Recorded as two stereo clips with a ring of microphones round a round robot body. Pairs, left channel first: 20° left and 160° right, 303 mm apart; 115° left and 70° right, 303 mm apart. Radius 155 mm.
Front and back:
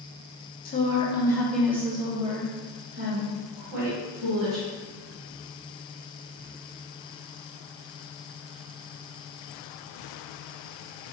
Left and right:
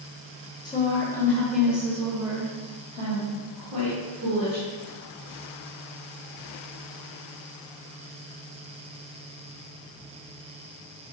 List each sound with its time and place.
0.7 s a woman speaking: 50° left, 1.1 m; by 4.6 s 130° right, 2 m